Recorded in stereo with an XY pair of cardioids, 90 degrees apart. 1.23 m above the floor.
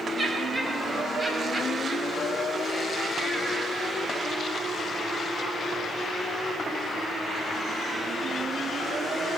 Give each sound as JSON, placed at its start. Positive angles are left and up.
{"t": 0.2, "sound": "laughter", "azimuth_deg": -25, "distance_m": 6.5}